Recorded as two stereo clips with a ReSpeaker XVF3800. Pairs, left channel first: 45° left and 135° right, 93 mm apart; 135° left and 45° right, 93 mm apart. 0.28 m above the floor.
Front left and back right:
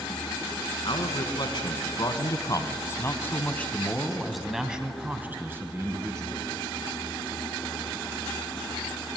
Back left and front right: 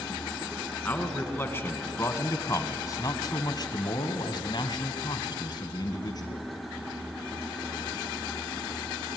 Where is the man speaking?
65° left, 3.5 m; by 6.5 s 175° left, 3 m.